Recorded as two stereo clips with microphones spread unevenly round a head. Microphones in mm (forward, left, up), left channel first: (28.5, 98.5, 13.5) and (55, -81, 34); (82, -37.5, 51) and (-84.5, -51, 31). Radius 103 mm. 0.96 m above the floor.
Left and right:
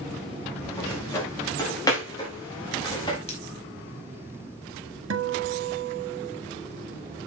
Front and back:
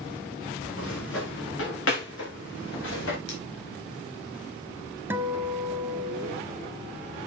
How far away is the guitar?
About 1.5 m.